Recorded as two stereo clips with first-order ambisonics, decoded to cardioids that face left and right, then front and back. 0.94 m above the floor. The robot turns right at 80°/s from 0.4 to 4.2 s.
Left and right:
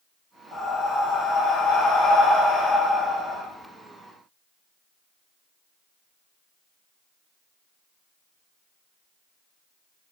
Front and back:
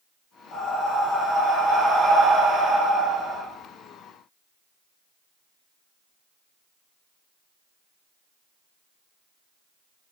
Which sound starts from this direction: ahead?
Breathing, at 0.5 s.